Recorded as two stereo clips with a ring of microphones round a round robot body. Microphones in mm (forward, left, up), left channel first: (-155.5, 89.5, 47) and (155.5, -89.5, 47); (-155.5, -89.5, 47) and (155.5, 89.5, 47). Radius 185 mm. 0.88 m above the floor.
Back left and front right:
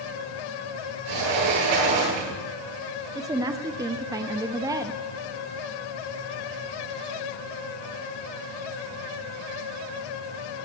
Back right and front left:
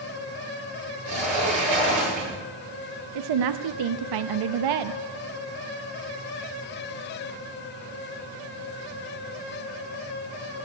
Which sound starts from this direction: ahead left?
A woman speaking, at 3.1 s.